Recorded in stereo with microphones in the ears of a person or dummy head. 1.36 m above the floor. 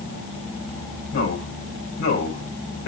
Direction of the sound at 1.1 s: 80° left.